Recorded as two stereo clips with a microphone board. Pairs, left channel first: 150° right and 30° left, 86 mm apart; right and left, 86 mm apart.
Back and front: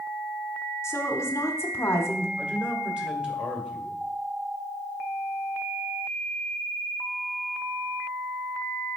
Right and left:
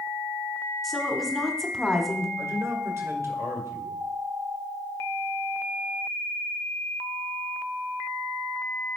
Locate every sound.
0.8 s a woman speaking: 175° right, 1.0 m
2.4 s a man speaking: 100° left, 1.7 m